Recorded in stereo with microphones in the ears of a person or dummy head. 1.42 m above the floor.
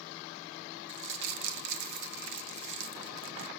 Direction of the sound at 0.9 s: 65° right (ahead or behind).